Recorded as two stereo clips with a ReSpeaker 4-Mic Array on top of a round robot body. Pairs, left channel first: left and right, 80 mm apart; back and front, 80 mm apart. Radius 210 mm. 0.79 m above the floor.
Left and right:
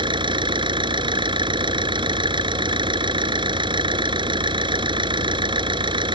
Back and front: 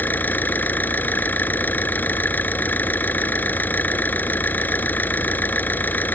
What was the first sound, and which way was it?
An engine running, 110° right.